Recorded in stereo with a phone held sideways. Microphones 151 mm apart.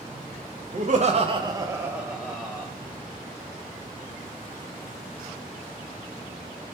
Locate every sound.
0.7 s laughter: 55° right (ahead or behind), 0.5 m; by 2.7 s 5° left (ahead or behind), 0.9 m